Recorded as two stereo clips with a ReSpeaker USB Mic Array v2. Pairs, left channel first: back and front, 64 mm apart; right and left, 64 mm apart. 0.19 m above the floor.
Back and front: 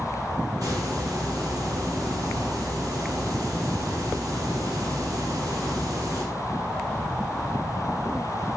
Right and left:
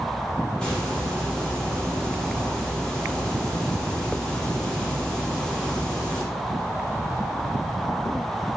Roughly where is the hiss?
Ahead.